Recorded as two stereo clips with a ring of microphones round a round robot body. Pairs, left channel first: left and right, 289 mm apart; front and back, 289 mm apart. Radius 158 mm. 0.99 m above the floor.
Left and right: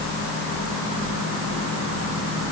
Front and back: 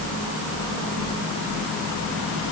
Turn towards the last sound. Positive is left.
No sound to turn to.